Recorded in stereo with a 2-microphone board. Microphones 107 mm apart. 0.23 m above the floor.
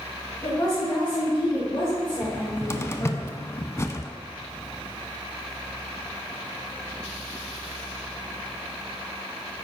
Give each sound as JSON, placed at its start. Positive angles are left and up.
{"t": 0.4, "sound": "a woman speaking", "side_deg": 30, "distance_m": 1.8}
{"t": 2.2, "sound": "a cupboard door", "side_deg": 25, "distance_m": 0.5}